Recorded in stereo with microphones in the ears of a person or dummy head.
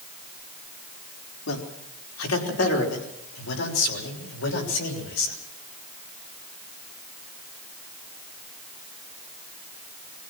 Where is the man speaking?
80° left, 4.5 m; by 5.3 s 90° left, 6.5 m.